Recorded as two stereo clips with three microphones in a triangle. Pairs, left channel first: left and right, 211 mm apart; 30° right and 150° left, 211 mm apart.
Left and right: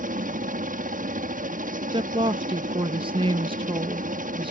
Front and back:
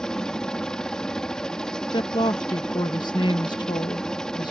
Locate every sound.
0.0 s a helicopter: 115° right
1.9 s a woman speaking: 70° right